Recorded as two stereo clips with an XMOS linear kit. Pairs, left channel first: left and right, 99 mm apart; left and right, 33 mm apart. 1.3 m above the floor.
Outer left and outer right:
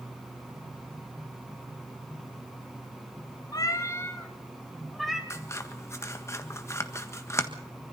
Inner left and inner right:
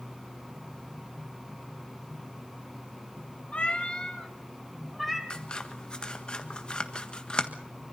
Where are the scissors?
30° left (ahead or behind), 1.5 m.